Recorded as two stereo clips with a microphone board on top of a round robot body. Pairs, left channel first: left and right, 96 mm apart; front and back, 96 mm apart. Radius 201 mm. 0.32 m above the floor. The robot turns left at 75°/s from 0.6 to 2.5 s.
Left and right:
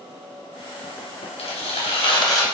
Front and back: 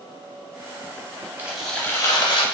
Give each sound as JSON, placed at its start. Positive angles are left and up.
{"t": 1.4, "sound": "tearing paper", "azimuth_deg": 105, "distance_m": 0.8}